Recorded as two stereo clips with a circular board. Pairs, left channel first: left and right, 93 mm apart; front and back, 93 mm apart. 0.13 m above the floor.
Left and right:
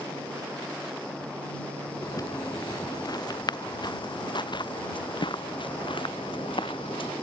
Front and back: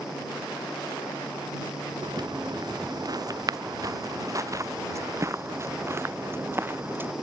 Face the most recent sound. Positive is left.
turn(degrees=115)